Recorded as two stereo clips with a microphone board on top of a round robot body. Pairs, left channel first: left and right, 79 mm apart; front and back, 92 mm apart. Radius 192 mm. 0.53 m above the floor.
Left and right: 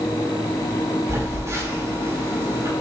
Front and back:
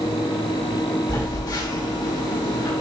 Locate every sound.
1.1 s a phone buzzing: 35° right, 4.5 m